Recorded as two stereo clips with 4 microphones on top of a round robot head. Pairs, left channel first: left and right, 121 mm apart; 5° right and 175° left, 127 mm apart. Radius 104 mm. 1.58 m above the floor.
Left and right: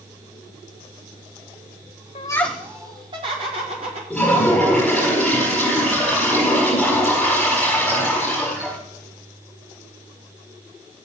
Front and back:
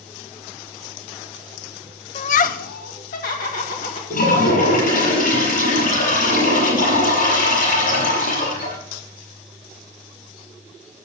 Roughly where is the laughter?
Ahead left.